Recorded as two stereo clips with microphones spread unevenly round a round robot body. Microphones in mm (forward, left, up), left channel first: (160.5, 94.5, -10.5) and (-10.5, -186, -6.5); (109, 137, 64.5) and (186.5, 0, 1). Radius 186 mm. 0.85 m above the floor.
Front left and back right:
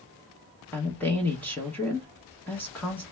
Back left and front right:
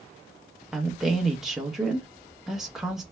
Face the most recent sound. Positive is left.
turn(degrees=-20)